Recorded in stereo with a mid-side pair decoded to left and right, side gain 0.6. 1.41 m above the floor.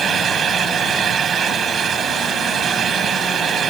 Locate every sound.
0.0 s a fan: 35° right